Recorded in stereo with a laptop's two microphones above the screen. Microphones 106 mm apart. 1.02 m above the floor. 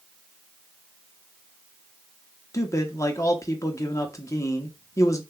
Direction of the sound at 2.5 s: 30° left (ahead or behind).